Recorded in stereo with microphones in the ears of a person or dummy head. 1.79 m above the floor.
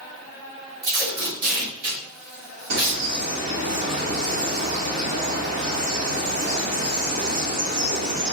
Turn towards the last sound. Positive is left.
turn(degrees=-50)  # may be behind; listen again after turning